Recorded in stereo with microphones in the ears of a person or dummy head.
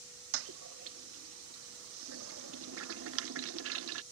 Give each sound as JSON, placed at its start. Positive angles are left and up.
{"t": 0.3, "sound": "a toilet flushing", "side_deg": -70}